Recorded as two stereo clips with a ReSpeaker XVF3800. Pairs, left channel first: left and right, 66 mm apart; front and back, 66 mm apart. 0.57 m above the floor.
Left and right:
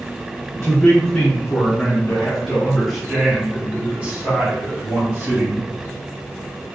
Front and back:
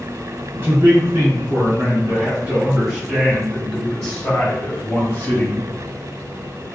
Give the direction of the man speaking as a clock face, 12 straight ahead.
7 o'clock.